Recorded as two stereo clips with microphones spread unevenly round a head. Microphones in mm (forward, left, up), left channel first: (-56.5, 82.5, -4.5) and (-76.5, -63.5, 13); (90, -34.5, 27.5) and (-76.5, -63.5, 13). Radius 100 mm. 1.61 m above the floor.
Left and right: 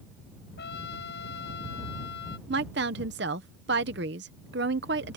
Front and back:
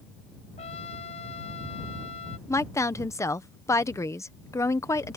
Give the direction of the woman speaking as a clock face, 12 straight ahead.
2 o'clock.